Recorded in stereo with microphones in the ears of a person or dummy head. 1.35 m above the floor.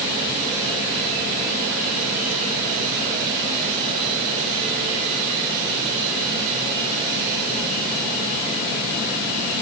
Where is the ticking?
I don't hear ticking.